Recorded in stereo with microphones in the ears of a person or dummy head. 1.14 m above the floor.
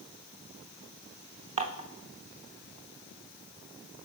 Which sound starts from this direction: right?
Dishes clattering, at 1.6 s.